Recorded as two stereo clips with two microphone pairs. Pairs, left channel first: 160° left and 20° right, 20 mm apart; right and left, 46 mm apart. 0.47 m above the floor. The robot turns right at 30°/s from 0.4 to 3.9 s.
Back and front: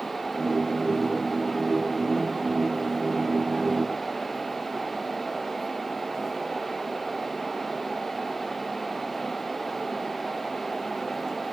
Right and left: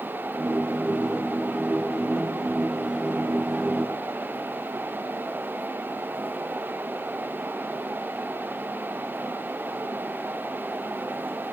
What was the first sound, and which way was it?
Only background noise.